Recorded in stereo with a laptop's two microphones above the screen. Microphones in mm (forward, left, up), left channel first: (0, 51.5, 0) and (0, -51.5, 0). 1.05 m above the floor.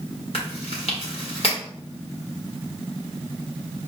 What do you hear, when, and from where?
0.3 s chewing: 65° left (ahead or behind), 1.4 m